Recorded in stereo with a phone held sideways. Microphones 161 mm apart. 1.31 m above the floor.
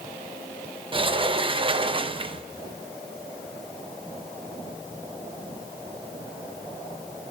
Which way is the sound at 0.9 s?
35° right (ahead or behind).